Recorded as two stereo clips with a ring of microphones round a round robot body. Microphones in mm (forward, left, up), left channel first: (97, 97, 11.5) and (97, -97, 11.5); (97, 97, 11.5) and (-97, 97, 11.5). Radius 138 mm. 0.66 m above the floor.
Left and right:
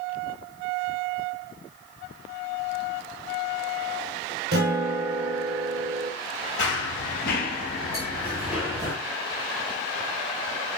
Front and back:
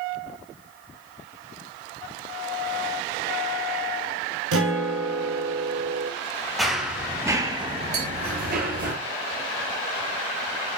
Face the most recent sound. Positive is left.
turn(degrees=-175)